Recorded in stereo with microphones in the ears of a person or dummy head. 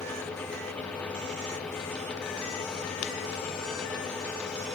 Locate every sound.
Only background noise.